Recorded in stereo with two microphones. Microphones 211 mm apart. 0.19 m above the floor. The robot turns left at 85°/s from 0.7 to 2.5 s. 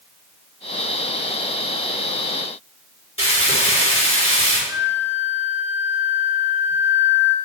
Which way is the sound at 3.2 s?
75° left (ahead or behind).